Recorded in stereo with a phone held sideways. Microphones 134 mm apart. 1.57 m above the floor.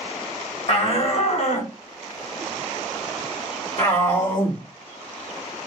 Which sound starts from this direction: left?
A shout, at 0.7 s.